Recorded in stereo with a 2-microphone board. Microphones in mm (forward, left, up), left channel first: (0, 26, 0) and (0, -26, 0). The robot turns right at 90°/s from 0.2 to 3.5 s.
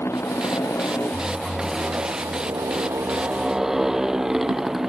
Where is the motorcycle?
55° left; by 4.9 s 10° right.